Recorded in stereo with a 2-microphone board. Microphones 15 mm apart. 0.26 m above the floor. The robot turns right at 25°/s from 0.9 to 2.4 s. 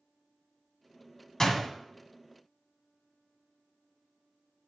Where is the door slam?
35° left (ahead or behind), 1.7 m; by 1.7 s 30° left (ahead or behind), 1.7 m.